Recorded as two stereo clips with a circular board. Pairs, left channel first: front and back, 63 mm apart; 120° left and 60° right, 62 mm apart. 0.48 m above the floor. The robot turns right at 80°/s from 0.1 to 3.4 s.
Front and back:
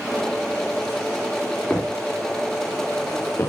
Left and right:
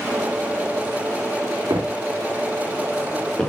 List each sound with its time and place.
1.7 s footsteps: 75° right, 2.5 m; by 3.5 s 40° left, 3 m